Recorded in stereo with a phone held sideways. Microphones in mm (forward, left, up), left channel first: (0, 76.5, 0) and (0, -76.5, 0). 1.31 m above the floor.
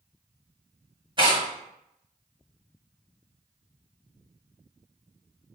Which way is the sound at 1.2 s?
30° right (ahead or behind).